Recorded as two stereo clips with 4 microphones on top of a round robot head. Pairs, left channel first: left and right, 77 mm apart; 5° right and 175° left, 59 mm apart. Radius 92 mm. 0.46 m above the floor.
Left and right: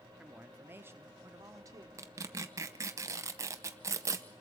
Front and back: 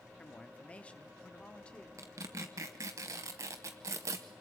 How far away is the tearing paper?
About 0.7 m.